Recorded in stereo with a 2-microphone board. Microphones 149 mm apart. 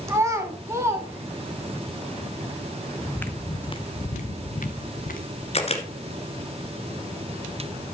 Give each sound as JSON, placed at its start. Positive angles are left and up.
{"t": 0.1, "sound": "a child speaking", "side_deg": -20, "distance_m": 1.0}
{"t": 3.0, "sound": "footsteps", "side_deg": 0, "distance_m": 0.8}
{"t": 5.5, "sound": "a camera shutter", "side_deg": 45, "distance_m": 1.7}